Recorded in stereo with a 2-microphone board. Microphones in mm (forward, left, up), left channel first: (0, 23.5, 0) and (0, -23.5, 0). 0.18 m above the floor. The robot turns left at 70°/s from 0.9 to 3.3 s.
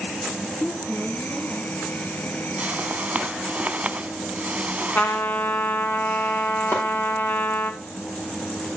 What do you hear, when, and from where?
0.5 s a woman speaking: 90° right, 4.5 m; by 1.7 s 145° right, 4.5 m
2.6 s a whoosh: 70° right, 0.7 m; by 5.3 s 120° right, 0.7 m
5.0 s a trumpet: 40° left (ahead or behind), 1.4 m
6.7 s chopping: 65° left (ahead or behind), 6 m